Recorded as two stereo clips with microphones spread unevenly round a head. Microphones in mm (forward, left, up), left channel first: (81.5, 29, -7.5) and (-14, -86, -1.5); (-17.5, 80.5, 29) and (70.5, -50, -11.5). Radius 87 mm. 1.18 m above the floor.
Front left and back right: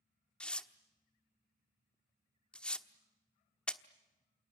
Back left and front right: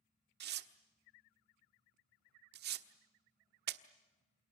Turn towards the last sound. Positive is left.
turn(degrees=-35)